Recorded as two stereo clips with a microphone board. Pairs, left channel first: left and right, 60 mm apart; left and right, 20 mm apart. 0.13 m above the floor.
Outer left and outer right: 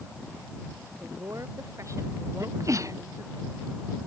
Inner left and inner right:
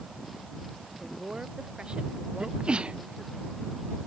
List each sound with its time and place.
1.0 s a woman speaking: 45° right (ahead or behind); by 3.4 s 60° right (ahead or behind)
2.4 s a sneeze: 55° right (ahead or behind)